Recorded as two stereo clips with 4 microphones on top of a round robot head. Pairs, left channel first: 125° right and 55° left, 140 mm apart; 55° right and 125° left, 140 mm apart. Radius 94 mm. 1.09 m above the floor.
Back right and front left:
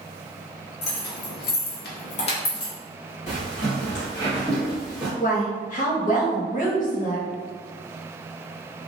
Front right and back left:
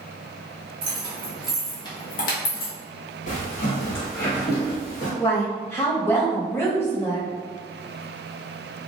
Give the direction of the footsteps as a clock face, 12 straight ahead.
3 o'clock.